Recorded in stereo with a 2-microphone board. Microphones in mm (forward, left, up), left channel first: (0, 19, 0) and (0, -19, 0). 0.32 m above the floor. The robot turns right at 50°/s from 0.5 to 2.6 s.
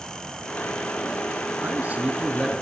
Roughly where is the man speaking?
Ahead right.